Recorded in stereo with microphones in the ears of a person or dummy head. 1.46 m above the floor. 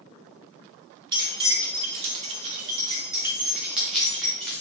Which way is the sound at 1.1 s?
20° right (ahead or behind).